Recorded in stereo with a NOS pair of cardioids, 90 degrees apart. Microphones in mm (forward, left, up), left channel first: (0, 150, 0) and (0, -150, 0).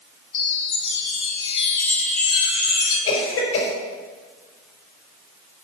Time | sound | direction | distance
0.3 | a chime | 45° left | 2.5 m
3.1 | a cough | 70° left | 4.5 m